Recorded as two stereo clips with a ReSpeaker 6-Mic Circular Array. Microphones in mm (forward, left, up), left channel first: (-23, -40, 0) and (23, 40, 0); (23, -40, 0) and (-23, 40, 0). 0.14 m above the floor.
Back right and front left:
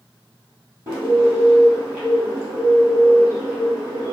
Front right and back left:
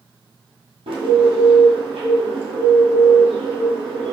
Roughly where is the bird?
Behind left.